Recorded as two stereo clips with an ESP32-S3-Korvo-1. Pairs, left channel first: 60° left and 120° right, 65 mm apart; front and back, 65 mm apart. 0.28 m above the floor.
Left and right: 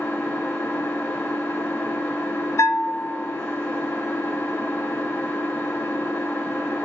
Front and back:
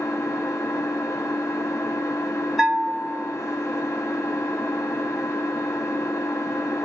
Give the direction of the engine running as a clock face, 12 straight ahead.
12 o'clock.